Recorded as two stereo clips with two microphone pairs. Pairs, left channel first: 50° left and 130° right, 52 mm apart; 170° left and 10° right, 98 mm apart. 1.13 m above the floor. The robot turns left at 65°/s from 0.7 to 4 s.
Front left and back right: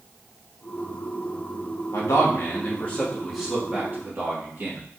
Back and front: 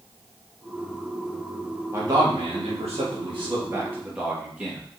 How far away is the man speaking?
About 1.3 m.